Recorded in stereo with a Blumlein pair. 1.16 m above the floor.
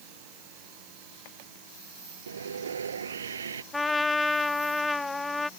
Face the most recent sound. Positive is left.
turn(degrees=10)